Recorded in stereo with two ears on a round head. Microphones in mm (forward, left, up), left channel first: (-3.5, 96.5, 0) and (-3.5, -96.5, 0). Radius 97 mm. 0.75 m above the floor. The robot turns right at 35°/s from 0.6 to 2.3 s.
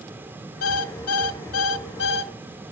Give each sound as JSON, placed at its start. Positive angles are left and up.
{"t": 0.6, "sound": "an alarm clock", "azimuth_deg": 75, "distance_m": 1.4}